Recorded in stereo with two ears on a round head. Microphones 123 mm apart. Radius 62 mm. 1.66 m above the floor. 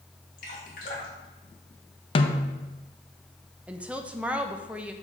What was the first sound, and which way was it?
Dripping, 65° left (ahead or behind).